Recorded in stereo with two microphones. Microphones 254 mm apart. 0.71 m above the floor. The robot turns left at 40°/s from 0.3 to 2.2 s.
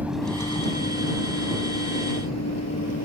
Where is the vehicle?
5° right (ahead or behind); by 3.0 s 75° left (ahead or behind).